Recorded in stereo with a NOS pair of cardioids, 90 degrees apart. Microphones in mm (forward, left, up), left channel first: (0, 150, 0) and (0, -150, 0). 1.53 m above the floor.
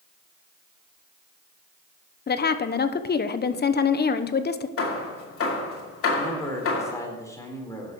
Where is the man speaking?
10° left, 4 m.